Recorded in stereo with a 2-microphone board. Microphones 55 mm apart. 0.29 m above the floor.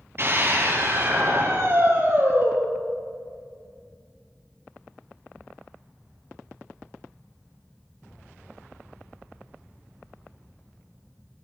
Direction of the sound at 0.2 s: 45° right (ahead or behind).